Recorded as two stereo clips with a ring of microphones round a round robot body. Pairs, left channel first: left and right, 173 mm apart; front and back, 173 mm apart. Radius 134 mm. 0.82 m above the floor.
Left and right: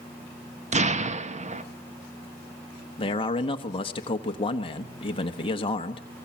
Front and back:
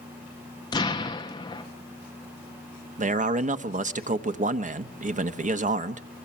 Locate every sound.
0.7 s an explosion: 60° right, 1.3 m
3.0 s a man speaking: 145° left, 1.1 m